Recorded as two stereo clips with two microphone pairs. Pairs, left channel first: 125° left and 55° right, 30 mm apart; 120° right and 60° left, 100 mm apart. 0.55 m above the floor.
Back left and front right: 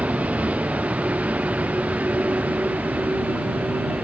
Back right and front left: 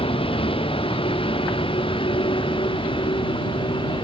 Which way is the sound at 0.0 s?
95° right.